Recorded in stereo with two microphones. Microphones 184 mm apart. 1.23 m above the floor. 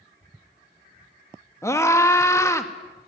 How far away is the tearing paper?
I don't hear tearing paper.